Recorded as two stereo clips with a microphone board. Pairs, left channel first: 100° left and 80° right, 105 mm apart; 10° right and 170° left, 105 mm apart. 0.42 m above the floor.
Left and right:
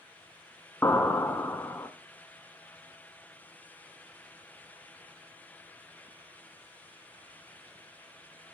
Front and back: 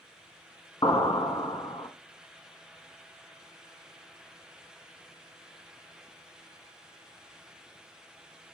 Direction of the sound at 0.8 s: 35° left.